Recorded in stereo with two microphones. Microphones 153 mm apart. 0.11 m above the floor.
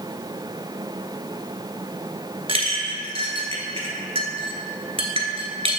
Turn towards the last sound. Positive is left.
turn(degrees=-40)  # may be behind; listen again after turning